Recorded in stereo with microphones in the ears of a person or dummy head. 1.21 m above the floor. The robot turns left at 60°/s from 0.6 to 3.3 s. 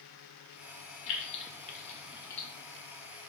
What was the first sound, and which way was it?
Keys jangling, 80° left.